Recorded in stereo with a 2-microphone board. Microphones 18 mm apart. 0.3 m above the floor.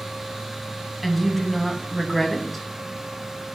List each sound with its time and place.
1.0 s a woman speaking: 5° left (ahead or behind), 2 m